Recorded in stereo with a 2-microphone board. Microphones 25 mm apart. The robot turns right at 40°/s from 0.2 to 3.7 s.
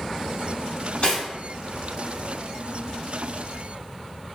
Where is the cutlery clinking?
45° left (ahead or behind), 1.5 m; by 1.2 s 40° left (ahead or behind), 1.5 m.